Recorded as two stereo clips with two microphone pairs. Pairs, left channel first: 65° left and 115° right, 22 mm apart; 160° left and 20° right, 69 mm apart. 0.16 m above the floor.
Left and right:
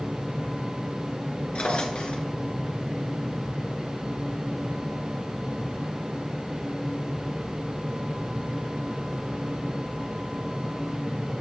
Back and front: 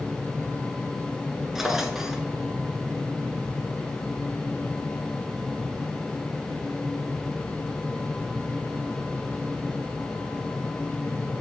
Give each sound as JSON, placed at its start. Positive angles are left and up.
{"t": 1.6, "sound": "a drawer", "azimuth_deg": 60, "distance_m": 1.5}